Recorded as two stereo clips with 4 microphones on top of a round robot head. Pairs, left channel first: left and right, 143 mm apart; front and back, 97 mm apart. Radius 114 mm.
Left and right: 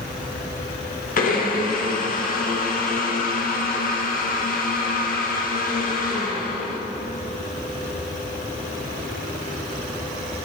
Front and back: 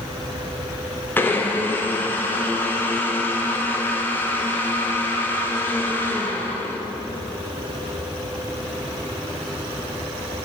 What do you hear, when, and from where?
1.2 s a blender: 70° left, 1.0 m